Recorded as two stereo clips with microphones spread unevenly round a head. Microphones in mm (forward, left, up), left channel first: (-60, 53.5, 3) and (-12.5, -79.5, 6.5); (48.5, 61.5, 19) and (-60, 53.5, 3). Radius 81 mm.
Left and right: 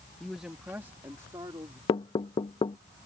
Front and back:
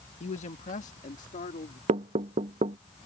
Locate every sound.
0.2 s a man speaking: 20° left; by 1.8 s 5° right
1.9 s knocking: 165° left